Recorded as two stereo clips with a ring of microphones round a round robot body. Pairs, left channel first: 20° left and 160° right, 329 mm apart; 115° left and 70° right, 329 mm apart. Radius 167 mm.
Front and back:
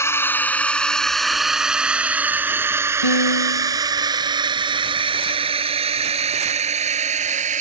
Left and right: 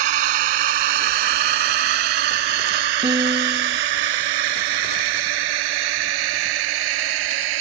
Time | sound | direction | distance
0.0 | a drone | 60° right | ?
3.0 | a piano | 10° left | ?